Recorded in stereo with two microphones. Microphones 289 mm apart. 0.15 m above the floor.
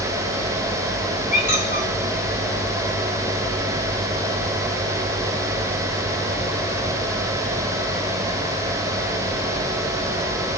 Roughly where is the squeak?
Left.